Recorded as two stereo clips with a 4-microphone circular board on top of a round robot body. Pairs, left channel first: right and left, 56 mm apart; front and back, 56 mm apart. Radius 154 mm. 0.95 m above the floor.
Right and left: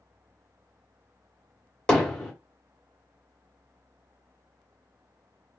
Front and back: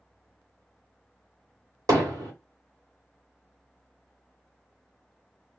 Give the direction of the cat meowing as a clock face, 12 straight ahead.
No cat meowing in this recording.